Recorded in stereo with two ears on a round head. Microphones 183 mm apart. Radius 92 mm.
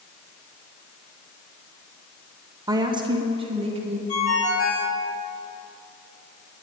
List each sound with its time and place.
2.7 s a woman speaking: 20° right (ahead or behind), 1.1 m; by 4.0 s 30° right (ahead or behind), 2 m
4.1 s a ringtone: 80° left, 4 m